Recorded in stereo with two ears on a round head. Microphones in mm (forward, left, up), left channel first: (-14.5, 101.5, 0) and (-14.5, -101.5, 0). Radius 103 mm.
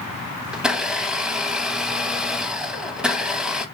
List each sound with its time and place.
0.5 s a blender: 5° right (ahead or behind), 0.5 m